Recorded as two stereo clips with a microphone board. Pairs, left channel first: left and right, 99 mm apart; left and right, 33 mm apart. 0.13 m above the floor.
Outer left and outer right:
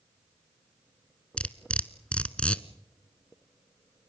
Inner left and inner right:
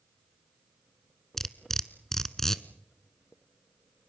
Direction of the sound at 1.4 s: 10° left (ahead or behind).